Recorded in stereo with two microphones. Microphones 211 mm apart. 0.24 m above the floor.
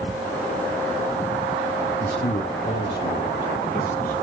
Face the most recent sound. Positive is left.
turn(degrees=40)  # may be behind; listen again after turning